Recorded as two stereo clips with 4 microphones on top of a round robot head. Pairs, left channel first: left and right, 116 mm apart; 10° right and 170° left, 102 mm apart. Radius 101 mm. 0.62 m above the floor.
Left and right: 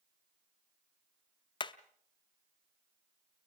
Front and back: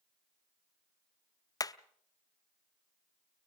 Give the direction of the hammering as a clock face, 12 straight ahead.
11 o'clock.